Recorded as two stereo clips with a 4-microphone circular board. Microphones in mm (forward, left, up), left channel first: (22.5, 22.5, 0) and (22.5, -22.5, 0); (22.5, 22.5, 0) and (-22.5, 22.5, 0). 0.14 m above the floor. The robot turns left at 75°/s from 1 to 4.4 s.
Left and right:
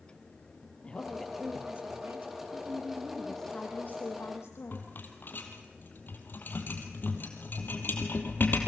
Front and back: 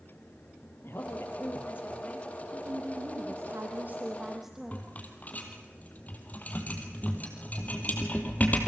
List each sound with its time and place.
0.8 s a woman speaking: 25° left, 3.5 m; by 2.3 s 75° right, 3.5 m
2.5 s a woman speaking: 120° right, 5.5 m; by 4.8 s 95° left, 5.5 m
4.7 s a rattle: 50° left, 2.5 m